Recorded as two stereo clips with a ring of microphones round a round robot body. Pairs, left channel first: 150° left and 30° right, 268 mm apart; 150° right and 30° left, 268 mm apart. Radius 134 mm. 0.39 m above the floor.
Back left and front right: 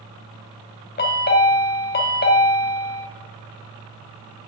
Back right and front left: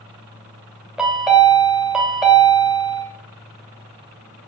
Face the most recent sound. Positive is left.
turn(degrees=115)